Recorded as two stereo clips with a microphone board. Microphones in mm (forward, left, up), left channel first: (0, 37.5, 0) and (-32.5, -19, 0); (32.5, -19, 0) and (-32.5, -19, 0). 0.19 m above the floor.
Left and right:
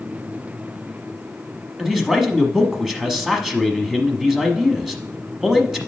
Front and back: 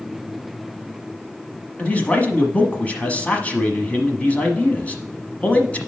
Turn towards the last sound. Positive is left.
turn(degrees=-40)